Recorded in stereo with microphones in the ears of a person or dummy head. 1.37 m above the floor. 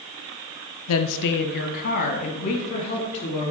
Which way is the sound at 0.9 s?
85° left.